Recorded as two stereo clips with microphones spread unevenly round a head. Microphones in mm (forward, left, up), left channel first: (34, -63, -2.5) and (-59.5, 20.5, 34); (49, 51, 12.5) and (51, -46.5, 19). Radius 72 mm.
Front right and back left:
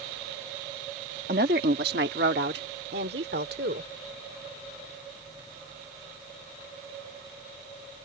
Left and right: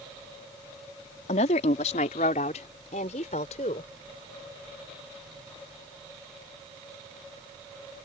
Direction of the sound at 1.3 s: 105° left.